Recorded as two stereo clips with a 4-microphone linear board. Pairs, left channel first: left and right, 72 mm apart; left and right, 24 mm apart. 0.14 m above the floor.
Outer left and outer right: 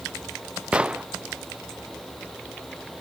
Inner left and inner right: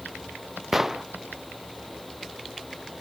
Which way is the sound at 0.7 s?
15° right (ahead or behind).